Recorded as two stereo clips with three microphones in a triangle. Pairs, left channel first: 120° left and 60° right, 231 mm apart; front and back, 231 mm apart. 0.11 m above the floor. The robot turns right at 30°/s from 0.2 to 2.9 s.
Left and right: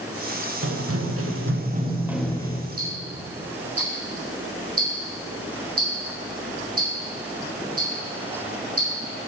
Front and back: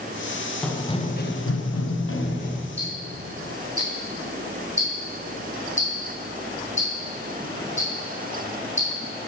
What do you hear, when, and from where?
0.6 s running footsteps: 85° right, 1.7 m; by 2.6 s 55° left, 1.9 m
2.8 s ticking: 60° right, 3.5 m